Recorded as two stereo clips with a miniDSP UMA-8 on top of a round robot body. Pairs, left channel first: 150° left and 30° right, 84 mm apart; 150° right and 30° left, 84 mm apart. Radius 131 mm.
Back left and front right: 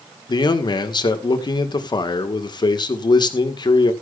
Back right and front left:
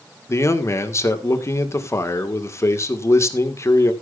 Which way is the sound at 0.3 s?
160° left.